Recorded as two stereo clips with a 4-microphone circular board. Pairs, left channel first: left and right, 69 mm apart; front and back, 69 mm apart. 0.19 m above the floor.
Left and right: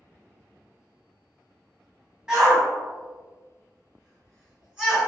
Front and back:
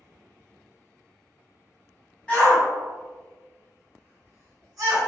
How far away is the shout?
About 1.2 m.